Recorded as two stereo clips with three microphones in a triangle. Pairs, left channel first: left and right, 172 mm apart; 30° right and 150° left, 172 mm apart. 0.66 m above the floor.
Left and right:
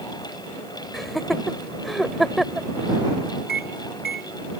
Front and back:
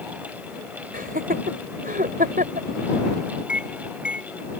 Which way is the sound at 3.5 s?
70° left.